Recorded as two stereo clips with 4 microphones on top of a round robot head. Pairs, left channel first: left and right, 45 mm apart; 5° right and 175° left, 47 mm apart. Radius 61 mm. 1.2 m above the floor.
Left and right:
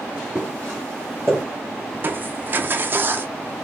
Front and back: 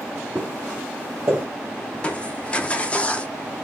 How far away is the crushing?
About 0.6 m.